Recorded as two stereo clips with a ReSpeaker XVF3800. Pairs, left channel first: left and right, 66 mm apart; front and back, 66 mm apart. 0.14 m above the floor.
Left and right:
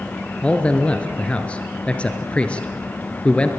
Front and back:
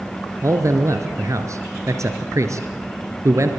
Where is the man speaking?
160° left, 2 m.